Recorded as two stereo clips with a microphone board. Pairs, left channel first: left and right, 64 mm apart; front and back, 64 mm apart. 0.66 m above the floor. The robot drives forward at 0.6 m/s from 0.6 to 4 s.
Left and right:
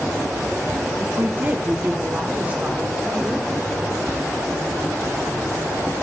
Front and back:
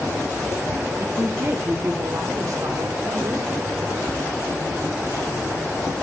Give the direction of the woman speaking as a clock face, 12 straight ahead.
4 o'clock.